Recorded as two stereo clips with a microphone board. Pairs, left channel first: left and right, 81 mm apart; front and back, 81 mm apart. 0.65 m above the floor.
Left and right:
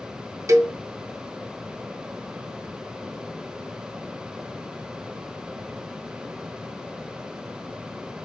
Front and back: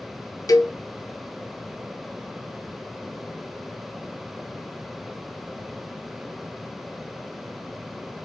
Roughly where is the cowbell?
Ahead right.